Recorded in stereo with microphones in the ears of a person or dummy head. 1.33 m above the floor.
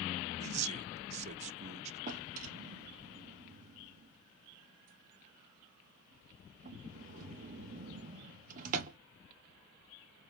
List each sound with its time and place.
0.4 s a man speaking: 40° right (ahead or behind), 0.5 m
2.1 s a drawer: 40° right (ahead or behind), 0.9 m